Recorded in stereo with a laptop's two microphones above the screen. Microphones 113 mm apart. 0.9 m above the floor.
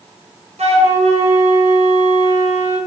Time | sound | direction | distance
0.6 | a flute | 75° right (ahead or behind) | 0.7 m